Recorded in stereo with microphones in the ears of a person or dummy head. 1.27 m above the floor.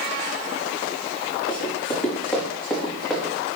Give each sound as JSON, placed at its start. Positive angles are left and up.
{"t": 1.5, "sound": "running footsteps", "side_deg": 15, "distance_m": 5.0}